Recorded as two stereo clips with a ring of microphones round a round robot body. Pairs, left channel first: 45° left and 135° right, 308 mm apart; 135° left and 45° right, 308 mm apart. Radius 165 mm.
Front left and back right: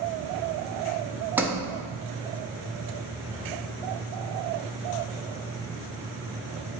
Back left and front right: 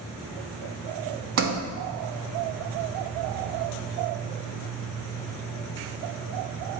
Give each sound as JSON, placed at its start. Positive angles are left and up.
{"t": 1.4, "sound": "a sliding door", "azimuth_deg": -55, "distance_m": 0.8}